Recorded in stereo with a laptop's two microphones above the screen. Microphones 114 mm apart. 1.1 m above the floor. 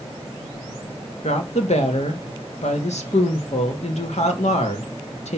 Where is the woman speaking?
75° left (ahead or behind), 1.6 m.